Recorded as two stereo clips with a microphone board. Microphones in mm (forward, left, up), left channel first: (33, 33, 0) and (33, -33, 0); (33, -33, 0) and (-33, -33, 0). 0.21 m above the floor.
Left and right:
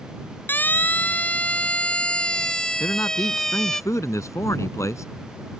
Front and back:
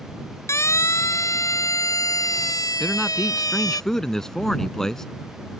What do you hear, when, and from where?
0.5 s a siren: 35° left; by 3.8 s 5° left
2.8 s a man speaking: 80° left